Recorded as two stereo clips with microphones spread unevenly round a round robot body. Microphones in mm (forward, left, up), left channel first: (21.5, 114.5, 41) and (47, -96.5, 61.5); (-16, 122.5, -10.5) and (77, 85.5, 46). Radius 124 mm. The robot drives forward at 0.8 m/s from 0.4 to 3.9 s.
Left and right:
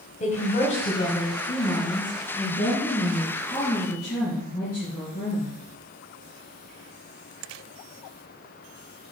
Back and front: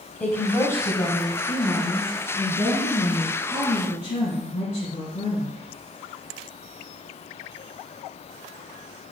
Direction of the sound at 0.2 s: 135° left.